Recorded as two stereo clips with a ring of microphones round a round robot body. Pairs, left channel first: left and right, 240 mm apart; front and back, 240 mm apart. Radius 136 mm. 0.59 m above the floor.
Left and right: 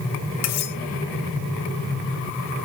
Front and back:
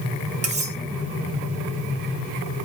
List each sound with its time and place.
0.4 s cutlery clinking: 120° left, 1.9 m